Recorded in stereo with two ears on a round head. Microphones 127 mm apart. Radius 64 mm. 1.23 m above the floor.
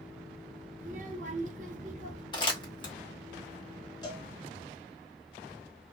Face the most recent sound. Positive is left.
turn(degrees=30)  # may be behind; listen again after turning